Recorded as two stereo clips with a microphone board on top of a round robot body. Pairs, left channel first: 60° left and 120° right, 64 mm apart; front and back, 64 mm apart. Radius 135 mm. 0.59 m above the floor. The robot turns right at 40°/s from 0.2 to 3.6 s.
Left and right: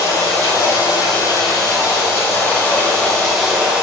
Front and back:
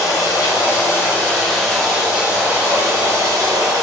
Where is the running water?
25° left, 1.3 m; by 3.8 s 160° left, 1.3 m.